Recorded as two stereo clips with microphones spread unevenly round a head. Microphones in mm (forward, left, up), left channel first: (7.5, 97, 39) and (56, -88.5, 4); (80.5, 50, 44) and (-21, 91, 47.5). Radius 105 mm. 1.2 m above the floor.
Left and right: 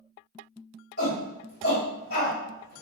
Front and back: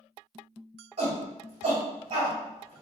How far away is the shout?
About 1.8 m.